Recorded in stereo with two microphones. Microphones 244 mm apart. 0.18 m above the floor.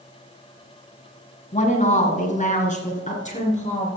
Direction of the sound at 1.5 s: 30° left (ahead or behind).